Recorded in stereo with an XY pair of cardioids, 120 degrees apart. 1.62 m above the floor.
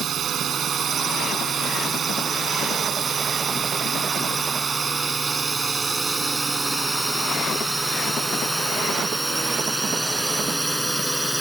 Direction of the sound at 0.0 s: 50° right.